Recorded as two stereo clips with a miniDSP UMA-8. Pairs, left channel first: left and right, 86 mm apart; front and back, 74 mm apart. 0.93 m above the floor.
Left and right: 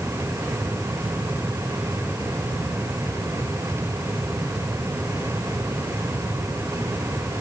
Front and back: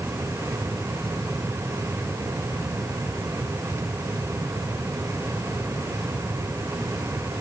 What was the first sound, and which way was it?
Only background noise.